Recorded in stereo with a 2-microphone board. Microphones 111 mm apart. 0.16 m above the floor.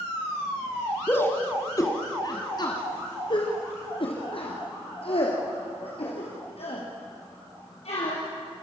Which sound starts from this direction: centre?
A shout, at 1.1 s.